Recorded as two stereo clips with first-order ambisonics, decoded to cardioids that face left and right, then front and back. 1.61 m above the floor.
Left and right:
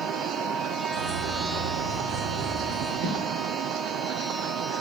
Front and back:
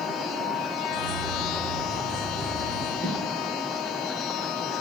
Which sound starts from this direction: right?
Footsteps, at 3.0 s.